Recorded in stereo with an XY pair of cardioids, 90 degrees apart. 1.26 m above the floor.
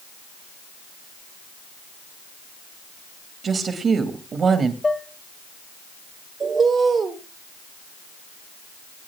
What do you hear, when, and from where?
3.4 s a woman speaking: 55° right, 2 m
4.8 s dishes clattering: 20° left, 1.3 m
6.4 s a bird: 50° right, 1.9 m